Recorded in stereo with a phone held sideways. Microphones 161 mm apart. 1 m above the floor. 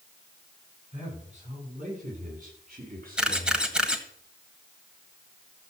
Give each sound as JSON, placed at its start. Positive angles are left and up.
{"t": 0.9, "sound": "a man speaking", "side_deg": -45, "distance_m": 8.5}
{"t": 3.2, "sound": "a camera shutter", "side_deg": -5, "distance_m": 1.7}